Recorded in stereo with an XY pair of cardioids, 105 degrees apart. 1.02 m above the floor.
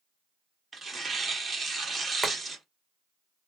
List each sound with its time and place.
0.7 s tearing paper: 35° right, 1.6 m
2.2 s boiling: 15° right, 1.4 m